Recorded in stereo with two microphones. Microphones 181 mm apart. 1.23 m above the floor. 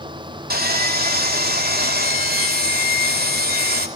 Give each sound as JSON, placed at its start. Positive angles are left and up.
{"t": 0.5, "sound": "sawing", "side_deg": -50, "distance_m": 2.5}